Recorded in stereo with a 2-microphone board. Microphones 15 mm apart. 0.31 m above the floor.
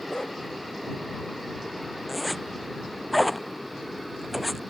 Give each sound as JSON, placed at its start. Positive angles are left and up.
{"t": 0.1, "sound": "a dog barking", "side_deg": 65}
{"t": 2.1, "sound": "a zipper", "side_deg": -5}